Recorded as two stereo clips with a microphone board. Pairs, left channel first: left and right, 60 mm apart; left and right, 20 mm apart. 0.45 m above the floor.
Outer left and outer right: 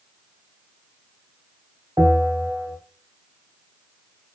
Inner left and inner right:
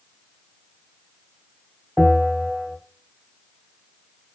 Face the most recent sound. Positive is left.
turn(degrees=-60)  # may be behind; listen again after turning